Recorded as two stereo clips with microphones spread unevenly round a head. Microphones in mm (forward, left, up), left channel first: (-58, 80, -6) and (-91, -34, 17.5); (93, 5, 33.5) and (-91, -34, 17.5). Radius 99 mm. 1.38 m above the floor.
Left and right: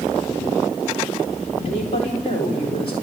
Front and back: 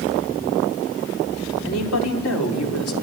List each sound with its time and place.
1.6 s a woman speaking: 10° left, 4 m